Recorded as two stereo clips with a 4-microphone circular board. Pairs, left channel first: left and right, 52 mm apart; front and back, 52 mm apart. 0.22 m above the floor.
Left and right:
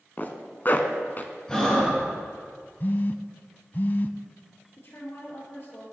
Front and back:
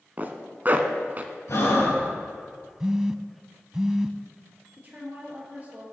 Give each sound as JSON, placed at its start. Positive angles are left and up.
{"t": 0.2, "sound": "a zipper", "azimuth_deg": 135, "distance_m": 1.0}
{"t": 1.5, "sound": "breathing", "azimuth_deg": 15, "distance_m": 4.0}
{"t": 2.8, "sound": "a phone buzzing", "azimuth_deg": 110, "distance_m": 0.5}
{"t": 4.8, "sound": "a woman speaking", "azimuth_deg": 125, "distance_m": 4.0}